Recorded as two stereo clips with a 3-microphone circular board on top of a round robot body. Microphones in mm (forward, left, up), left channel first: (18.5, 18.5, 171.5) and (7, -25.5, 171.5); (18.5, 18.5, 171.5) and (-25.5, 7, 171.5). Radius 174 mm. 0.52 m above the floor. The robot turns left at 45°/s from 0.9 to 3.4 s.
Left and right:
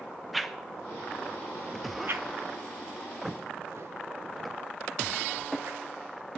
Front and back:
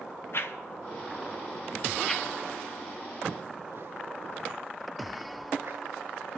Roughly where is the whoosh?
Ahead.